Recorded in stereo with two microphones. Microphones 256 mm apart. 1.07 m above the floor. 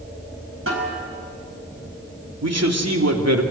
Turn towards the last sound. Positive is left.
turn(degrees=-75)  # may be behind; listen again after turning